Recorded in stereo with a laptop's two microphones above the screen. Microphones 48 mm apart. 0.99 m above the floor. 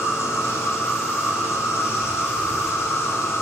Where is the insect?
65° left (ahead or behind), 0.7 m.